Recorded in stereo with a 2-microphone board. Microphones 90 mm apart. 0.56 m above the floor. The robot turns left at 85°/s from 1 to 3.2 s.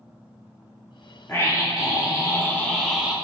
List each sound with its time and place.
1.3 s a scream: 140° left, 0.7 m; by 3.1 s 20° right, 0.7 m